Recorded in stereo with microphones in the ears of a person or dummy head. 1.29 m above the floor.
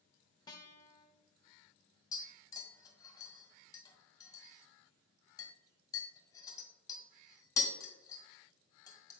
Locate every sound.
0.5 s a guitar: 25° left (ahead or behind), 1.2 m
2.1 s tapping: 20° left (ahead or behind), 2.5 m